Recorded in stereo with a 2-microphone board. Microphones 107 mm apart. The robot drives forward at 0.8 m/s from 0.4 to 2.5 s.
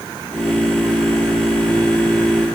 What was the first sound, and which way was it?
Only background noise.